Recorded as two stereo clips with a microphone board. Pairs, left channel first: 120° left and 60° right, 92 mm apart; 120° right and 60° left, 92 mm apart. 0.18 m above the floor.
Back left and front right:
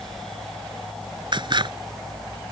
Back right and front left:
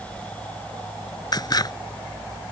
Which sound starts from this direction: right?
Scissors, at 1.3 s.